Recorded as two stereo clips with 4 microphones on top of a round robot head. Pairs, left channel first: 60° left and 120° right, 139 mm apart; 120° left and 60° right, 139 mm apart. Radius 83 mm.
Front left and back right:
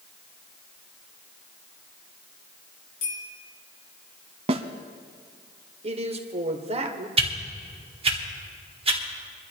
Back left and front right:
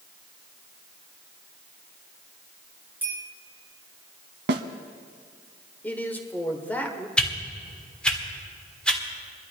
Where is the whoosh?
155° right, 1.8 m.